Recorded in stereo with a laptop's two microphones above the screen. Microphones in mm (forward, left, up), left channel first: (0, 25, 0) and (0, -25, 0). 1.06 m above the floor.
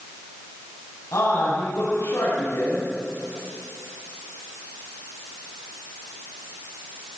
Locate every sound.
1.1 s a man speaking: 85° left, 8 m